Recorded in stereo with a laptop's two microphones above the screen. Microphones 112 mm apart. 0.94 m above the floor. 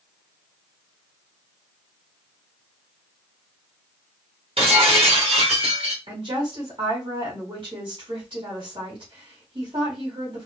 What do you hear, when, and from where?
4.6 s breaking glass: 60° right (ahead or behind), 1.8 m
6.1 s a woman speaking: 50° right (ahead or behind), 3 m